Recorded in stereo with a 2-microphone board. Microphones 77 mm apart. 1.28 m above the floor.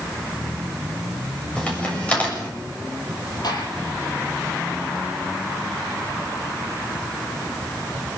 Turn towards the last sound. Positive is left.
turn(degrees=60)  # may be behind; listen again after turning